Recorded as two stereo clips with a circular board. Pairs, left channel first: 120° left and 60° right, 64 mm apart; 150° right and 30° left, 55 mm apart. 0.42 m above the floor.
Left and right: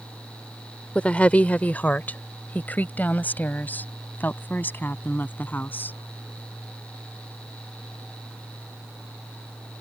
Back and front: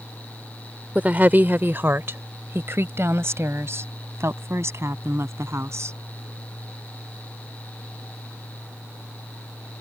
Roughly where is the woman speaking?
Ahead left.